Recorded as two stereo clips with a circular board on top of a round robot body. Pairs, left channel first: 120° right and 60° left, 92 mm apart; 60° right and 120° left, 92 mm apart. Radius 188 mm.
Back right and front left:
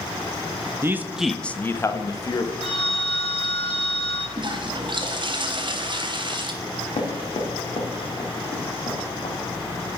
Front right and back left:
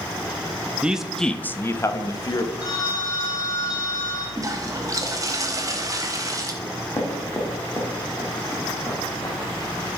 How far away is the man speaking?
About 0.6 m.